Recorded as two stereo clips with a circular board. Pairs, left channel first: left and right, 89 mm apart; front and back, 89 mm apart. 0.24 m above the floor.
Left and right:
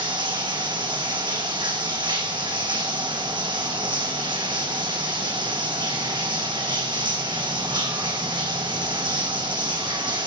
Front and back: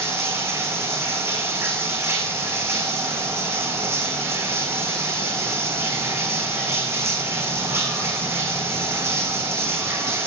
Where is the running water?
120° right, 3.5 m.